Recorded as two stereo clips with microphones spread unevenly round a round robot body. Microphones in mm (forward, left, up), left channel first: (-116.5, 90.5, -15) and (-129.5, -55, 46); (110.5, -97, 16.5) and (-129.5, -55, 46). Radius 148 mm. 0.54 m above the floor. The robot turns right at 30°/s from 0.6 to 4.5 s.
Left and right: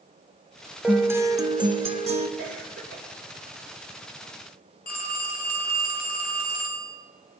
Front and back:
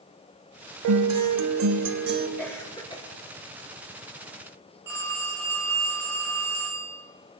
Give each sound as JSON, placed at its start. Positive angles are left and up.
{"t": 0.8, "sound": "a guitar", "azimuth_deg": 180, "distance_m": 1.0}
{"t": 2.4, "sound": "a cough", "azimuth_deg": -95, "distance_m": 2.5}
{"t": 4.9, "sound": "a phone ringing", "azimuth_deg": 85, "distance_m": 1.9}